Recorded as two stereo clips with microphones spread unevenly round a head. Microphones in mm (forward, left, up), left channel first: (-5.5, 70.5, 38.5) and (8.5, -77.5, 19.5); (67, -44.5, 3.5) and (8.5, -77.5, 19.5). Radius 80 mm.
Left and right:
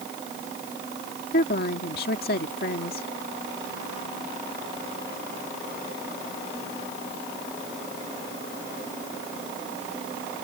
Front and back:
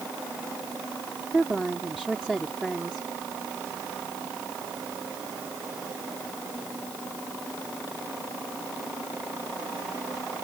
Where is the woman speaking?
120° left.